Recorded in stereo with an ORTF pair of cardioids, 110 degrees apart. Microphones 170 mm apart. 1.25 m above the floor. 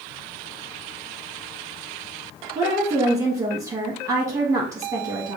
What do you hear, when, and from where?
2.5 s a woman speaking: 20° right, 1.5 m